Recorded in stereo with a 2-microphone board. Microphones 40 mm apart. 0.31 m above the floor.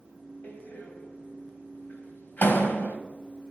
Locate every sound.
0.4 s a door slam: 50° left (ahead or behind), 1.4 m